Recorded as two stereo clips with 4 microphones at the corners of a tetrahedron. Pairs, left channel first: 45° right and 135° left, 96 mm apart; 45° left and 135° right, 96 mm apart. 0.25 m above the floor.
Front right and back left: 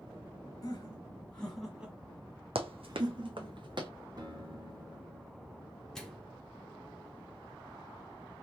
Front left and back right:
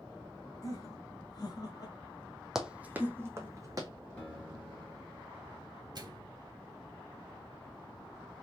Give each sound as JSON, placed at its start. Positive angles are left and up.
{"t": 0.6, "sound": "laughter", "azimuth_deg": 0, "distance_m": 1.6}
{"t": 2.5, "sound": "running footsteps", "azimuth_deg": 140, "distance_m": 0.8}
{"t": 4.2, "sound": "a guitar", "azimuth_deg": 120, "distance_m": 2.5}
{"t": 6.0, "sound": "a microwave", "azimuth_deg": -130, "distance_m": 1.0}